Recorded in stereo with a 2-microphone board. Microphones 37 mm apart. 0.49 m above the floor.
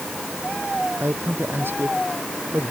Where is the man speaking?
70° right (ahead or behind); by 2.7 s 75° right (ahead or behind).